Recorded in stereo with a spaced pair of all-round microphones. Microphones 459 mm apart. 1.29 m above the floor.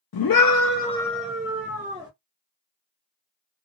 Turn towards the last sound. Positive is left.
turn(degrees=-20)  # may be behind; listen again after turning